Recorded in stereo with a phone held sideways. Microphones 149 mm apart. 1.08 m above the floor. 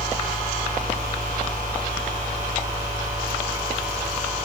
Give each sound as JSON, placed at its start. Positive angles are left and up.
{"t": 0.0, "sound": "a fan", "side_deg": -60}